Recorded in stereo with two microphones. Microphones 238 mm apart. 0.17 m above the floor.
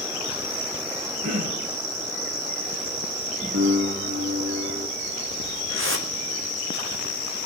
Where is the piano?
75° right (ahead or behind), 8.5 m.